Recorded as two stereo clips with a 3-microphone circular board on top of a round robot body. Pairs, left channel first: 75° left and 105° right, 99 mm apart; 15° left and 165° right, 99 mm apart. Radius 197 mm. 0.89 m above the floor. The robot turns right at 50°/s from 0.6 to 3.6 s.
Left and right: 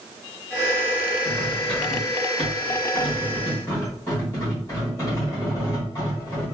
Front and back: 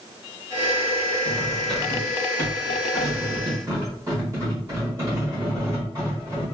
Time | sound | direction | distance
1.2 | cutlery clinking | 20° left | 1.5 m